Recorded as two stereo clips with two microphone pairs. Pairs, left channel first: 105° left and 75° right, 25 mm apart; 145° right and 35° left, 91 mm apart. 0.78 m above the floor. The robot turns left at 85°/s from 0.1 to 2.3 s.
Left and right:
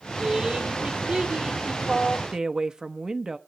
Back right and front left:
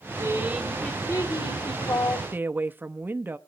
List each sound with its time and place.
0.2 s a woman speaking: 10° right, 3 m; by 2.2 s straight behind, 3 m
2.3 s a woman speaking: 25° right, 0.8 m